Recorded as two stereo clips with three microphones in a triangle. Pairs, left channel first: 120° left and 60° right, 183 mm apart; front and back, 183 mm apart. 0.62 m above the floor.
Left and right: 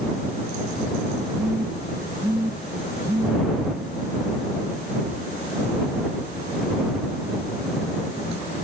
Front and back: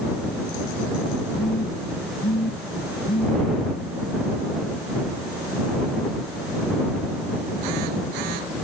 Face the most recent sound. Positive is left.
turn(degrees=15)